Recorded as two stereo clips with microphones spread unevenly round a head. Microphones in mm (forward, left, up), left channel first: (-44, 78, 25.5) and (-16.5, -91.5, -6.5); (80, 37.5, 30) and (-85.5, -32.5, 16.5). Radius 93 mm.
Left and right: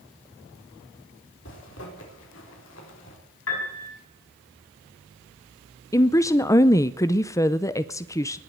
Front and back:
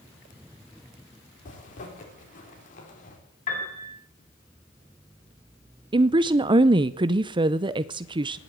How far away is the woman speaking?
About 0.5 m.